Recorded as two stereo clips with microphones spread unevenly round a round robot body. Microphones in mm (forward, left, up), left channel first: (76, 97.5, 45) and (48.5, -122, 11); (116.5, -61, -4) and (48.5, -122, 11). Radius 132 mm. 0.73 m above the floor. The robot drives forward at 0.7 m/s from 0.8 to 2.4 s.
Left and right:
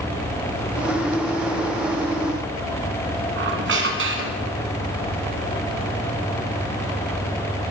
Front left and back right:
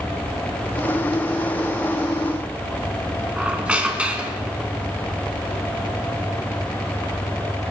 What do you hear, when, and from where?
3.4 s a squeak: 65° right, 2.5 m